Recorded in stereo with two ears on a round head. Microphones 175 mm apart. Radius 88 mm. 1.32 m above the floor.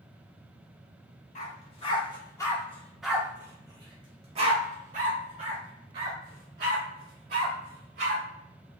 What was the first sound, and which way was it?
A dog barking, 35° left (ahead or behind).